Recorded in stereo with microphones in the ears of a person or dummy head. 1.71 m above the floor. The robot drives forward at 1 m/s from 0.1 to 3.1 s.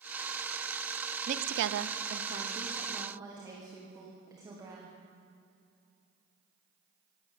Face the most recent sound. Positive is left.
turn(degrees=-20)  # may be behind; listen again after turning